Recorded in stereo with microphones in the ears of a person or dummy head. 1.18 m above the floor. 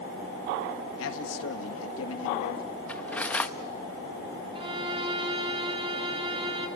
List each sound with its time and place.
1.0 s a man speaking: 75° left (ahead or behind), 1.9 m
2.9 s cutlery clinking: 5° left (ahead or behind), 0.7 m
4.5 s a violin: 35° right (ahead or behind), 1.7 m